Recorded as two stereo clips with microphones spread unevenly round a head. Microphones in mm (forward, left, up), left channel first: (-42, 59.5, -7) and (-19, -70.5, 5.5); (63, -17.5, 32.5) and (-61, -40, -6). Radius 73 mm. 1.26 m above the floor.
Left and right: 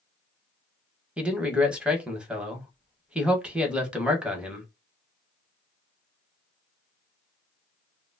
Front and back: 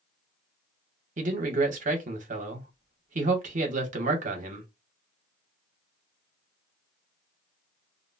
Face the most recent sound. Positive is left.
turn(degrees=-165)